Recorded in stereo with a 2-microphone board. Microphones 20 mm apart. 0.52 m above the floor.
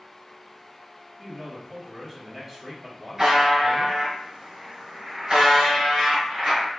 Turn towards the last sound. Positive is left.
turn(degrees=-40)  # may be behind; listen again after turning